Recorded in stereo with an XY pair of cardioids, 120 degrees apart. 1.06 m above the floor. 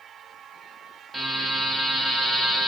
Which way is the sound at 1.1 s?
10° right.